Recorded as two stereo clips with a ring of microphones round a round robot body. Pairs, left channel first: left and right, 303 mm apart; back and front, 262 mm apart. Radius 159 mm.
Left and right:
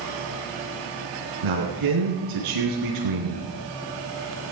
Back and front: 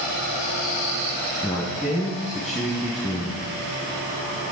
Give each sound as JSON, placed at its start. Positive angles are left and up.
{"t": 1.4, "sound": "a man speaking", "azimuth_deg": -90, "distance_m": 4.0}